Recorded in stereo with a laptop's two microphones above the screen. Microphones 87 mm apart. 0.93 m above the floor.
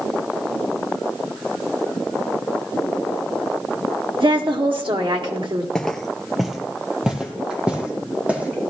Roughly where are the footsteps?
Centre.